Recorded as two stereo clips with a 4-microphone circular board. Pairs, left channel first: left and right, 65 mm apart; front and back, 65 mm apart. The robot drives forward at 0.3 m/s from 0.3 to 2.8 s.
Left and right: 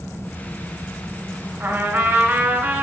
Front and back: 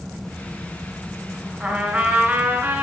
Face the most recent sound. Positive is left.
turn(degrees=-150)